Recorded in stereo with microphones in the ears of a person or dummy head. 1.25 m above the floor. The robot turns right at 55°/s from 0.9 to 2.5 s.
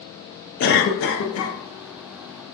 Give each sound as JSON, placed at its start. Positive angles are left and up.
{"t": 0.6, "sound": "a cough", "azimuth_deg": 60, "distance_m": 0.6}